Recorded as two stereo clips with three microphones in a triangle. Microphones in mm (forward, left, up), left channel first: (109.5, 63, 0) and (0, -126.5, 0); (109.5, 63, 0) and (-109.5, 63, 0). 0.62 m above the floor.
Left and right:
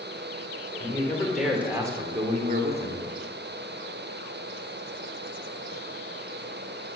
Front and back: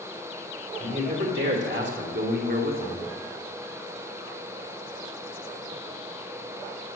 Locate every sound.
0.8 s a man speaking: 135° left, 2.5 m; by 3.1 s 130° right, 2.0 m